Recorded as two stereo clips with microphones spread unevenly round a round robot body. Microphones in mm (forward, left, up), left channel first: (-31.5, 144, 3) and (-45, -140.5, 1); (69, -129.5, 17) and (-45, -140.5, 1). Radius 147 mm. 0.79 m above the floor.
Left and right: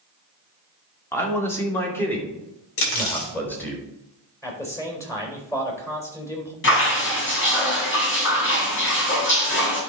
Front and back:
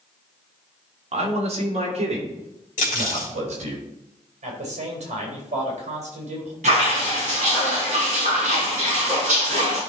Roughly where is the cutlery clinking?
Ahead left.